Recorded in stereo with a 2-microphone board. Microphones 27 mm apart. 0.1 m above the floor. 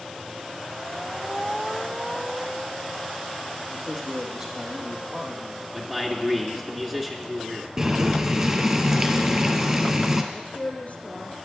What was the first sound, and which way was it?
A man speaking, 25° right (ahead or behind).